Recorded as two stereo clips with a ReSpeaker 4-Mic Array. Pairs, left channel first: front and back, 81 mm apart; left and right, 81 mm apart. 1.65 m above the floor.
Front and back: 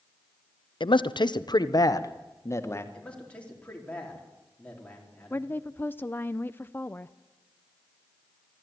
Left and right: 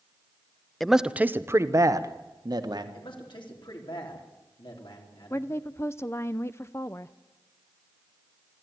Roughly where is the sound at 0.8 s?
Ahead.